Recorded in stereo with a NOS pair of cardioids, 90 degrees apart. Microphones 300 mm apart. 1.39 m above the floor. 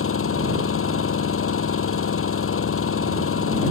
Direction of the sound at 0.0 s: 45° left.